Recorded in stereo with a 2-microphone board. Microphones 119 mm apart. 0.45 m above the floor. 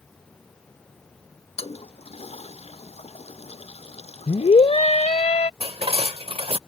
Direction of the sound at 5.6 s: 55° right (ahead or behind).